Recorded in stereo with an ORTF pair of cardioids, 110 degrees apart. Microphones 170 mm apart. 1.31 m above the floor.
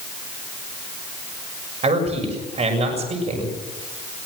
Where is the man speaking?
40° right, 6.5 m.